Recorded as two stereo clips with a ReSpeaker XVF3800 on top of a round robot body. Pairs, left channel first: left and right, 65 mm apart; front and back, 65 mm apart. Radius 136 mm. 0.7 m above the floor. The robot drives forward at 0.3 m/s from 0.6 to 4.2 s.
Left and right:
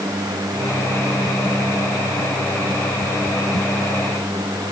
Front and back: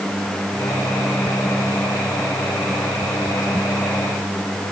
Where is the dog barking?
No dog barking in this recording.